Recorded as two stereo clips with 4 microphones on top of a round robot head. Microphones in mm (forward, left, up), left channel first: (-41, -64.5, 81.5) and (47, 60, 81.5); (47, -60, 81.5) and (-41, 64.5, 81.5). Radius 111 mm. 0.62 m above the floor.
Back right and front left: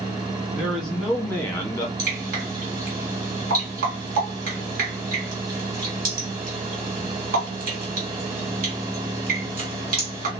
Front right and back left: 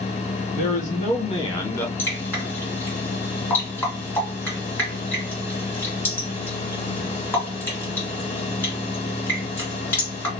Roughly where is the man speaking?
Ahead right.